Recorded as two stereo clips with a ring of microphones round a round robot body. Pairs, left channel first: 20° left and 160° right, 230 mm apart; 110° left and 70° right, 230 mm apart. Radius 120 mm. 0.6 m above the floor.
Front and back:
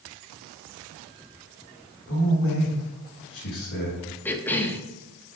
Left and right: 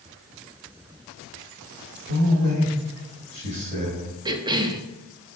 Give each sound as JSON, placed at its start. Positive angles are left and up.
{"t": 2.1, "sound": "a man speaking", "azimuth_deg": -20, "distance_m": 3.0}
{"t": 4.2, "sound": "a cough", "azimuth_deg": -45, "distance_m": 0.8}